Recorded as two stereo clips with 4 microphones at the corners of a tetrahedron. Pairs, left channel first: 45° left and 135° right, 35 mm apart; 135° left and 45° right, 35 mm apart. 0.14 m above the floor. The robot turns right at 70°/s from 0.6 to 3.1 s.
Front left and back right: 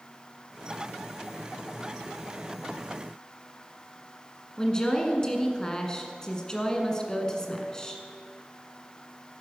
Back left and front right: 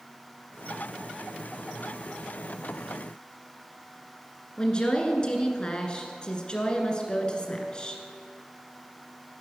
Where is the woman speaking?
100° left, 1.7 m.